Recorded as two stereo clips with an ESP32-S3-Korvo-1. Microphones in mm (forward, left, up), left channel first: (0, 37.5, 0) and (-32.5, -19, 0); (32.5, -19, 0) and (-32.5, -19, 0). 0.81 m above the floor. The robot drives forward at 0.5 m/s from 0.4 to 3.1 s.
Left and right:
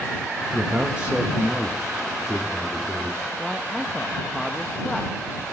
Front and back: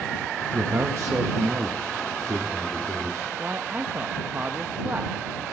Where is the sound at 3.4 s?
145° left, 0.6 m.